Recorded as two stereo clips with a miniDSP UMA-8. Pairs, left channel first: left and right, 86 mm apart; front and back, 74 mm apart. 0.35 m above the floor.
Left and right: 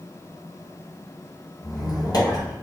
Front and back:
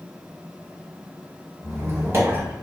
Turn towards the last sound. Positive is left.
turn(degrees=125)